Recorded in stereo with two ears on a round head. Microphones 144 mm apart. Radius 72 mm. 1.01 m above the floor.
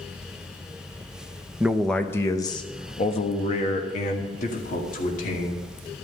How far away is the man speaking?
About 0.7 m.